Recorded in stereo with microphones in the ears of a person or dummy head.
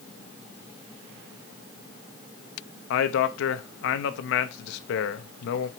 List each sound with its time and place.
2.9 s a man speaking: 70° left (ahead or behind), 0.8 m